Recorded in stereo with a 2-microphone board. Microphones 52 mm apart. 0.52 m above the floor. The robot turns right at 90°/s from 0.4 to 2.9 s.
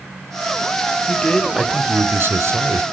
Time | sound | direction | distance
1.1 | a man speaking | 140° left | 1.3 m